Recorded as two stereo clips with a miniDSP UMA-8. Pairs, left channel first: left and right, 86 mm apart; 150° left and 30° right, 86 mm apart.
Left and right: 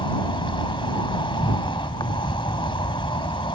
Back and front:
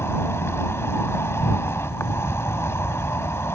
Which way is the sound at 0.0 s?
90° left.